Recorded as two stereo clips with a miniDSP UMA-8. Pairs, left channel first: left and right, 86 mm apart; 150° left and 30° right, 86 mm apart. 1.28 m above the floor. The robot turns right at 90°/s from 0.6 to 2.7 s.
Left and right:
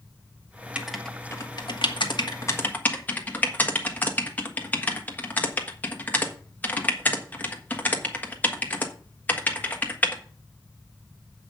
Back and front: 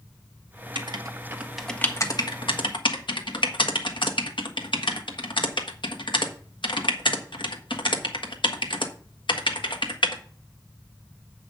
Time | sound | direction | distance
0.8 | writing | 15° right | 1.4 m